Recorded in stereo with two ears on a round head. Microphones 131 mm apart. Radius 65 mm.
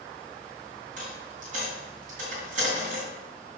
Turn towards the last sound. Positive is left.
turn(degrees=-55)  # may be behind; listen again after turning